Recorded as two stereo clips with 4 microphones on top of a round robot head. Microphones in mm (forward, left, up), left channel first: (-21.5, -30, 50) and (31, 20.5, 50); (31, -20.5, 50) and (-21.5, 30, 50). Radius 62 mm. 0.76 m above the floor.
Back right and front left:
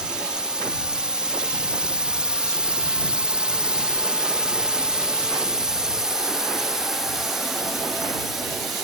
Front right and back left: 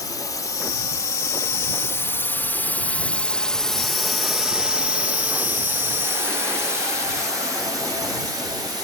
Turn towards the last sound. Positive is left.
turn(degrees=130)